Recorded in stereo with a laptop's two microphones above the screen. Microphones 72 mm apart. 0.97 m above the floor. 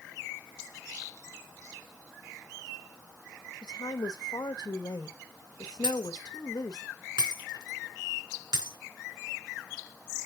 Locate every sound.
3.6 s a woman speaking: 65° left (ahead or behind), 1.1 m
5.8 s breaking glass: 80° right, 4 m